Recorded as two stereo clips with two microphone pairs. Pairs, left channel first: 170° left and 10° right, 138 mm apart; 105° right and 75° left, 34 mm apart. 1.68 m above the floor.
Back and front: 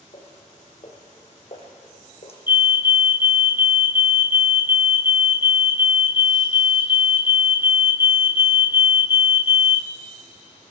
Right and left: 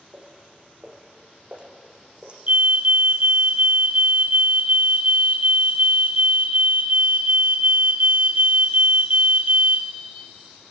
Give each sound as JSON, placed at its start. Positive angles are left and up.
{"t": 0.1, "sound": "footsteps", "azimuth_deg": 125, "distance_m": 6.0}
{"t": 2.5, "sound": "a fire alarm", "azimuth_deg": 60, "distance_m": 0.9}